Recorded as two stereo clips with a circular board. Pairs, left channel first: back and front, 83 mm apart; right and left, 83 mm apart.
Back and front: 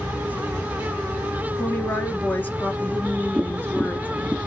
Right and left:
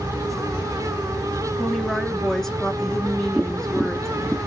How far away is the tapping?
About 1.1 m.